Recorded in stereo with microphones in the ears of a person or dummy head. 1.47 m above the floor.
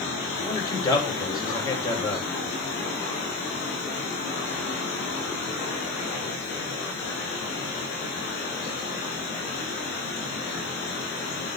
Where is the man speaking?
20° left (ahead or behind), 2.5 m.